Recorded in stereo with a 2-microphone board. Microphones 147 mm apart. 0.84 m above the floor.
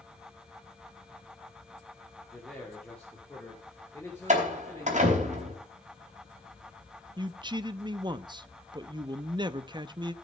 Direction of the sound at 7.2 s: 30° right (ahead or behind).